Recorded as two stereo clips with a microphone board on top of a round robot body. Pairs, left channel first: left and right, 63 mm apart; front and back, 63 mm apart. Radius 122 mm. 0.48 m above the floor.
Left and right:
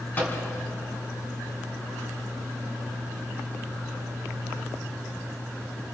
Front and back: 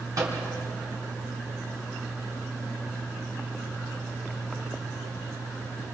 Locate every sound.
0.2 s a microwave: 150° left, 5 m